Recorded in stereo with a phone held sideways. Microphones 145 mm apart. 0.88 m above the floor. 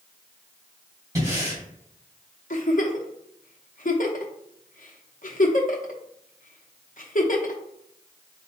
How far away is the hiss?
No hiss in this recording.